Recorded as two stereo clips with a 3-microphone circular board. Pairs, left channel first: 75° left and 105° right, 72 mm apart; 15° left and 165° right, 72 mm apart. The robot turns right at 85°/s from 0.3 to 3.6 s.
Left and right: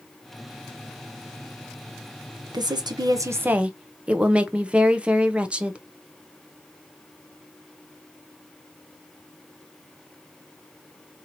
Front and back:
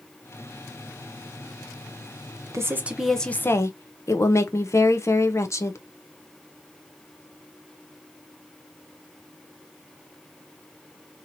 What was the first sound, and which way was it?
A woman speaking, 120° right.